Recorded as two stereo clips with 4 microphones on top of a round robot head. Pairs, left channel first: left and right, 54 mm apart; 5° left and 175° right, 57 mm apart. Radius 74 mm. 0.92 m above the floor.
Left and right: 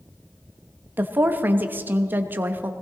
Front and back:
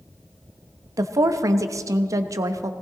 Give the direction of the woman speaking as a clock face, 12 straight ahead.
5 o'clock.